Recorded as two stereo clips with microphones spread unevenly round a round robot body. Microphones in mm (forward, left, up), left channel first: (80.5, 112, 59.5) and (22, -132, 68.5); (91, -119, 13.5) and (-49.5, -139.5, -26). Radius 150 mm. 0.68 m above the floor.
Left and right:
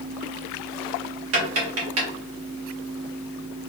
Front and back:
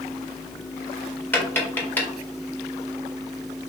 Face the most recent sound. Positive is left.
turn(degrees=-75)